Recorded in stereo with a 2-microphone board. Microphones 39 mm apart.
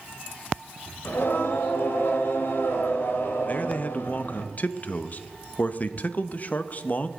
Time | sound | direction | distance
1.1 | singing | 65° left (ahead or behind) | 1.7 m
3.5 | a man speaking | 40° left (ahead or behind) | 0.6 m